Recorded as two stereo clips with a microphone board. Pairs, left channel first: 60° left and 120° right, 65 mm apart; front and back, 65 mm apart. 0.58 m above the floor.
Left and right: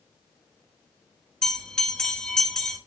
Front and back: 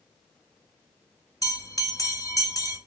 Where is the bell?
20° right, 1.1 m.